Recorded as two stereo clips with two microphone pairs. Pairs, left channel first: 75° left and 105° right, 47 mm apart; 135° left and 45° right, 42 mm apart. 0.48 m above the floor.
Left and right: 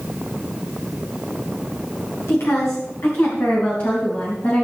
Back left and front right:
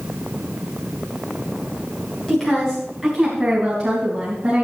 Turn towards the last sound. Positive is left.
turn(degrees=35)